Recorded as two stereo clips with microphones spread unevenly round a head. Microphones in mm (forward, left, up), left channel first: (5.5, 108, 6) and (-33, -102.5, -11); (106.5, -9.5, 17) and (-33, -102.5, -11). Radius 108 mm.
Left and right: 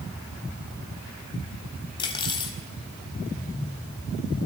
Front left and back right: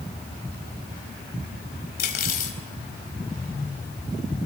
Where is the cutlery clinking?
15° left, 4 m.